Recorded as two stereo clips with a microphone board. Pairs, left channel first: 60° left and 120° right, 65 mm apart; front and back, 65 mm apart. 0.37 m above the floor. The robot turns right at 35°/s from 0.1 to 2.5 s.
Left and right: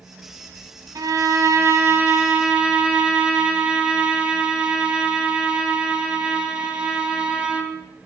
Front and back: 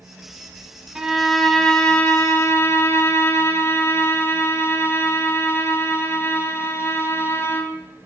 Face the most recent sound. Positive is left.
turn(degrees=-50)